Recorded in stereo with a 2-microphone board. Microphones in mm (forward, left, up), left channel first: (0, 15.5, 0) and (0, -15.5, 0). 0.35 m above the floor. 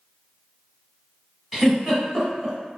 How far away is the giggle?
About 1.0 m.